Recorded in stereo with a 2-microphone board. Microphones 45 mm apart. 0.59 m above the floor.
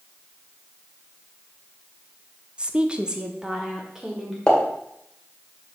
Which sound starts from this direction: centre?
A pop, at 4.5 s.